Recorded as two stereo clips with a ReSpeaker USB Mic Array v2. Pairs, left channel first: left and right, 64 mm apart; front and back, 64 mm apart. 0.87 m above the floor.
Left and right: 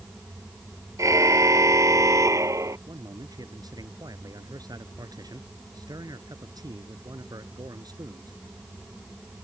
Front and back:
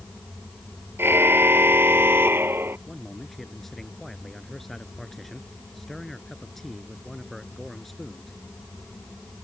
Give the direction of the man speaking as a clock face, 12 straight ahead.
3 o'clock.